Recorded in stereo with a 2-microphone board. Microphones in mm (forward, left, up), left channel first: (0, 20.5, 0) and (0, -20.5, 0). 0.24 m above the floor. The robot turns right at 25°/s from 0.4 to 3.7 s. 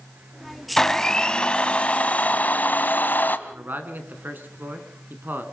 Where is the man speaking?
50° right (ahead or behind), 2.5 m.